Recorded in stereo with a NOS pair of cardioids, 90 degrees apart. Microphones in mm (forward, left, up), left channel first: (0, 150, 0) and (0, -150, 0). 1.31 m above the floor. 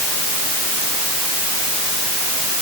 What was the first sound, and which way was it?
Only background noise.